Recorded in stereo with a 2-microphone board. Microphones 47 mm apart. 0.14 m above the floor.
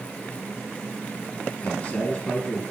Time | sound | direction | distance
1.6 | a man speaking | 35° left (ahead or behind) | 3 m